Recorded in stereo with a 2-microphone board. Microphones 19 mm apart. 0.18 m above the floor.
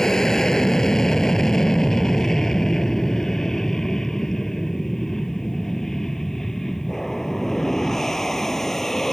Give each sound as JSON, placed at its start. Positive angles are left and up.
{"t": 0.0, "sound": "an aircraft", "side_deg": 25}